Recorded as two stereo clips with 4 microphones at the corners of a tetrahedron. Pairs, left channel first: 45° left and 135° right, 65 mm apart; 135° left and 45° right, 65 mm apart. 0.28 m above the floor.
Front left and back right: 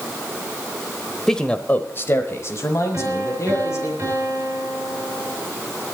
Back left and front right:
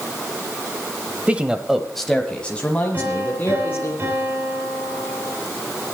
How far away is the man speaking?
About 1.0 m.